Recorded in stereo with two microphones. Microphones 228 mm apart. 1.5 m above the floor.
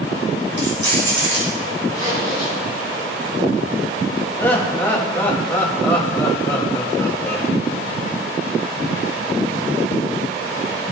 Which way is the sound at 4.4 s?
10° left (ahead or behind).